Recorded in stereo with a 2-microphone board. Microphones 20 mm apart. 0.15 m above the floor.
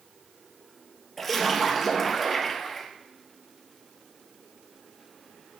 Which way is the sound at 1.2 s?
10° left (ahead or behind).